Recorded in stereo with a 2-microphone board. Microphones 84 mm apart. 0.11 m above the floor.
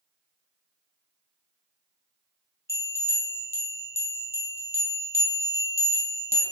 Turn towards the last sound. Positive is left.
turn(degrees=-35)  # may be behind; listen again after turning